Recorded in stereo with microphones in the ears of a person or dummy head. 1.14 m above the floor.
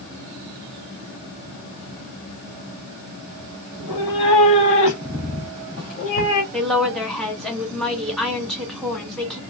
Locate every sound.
3.7 s a cat meowing: 25° left (ahead or behind), 2 m; by 6.4 s 50° left (ahead or behind), 1.3 m
6.5 s a woman speaking: centre (ahead or behind), 1.3 m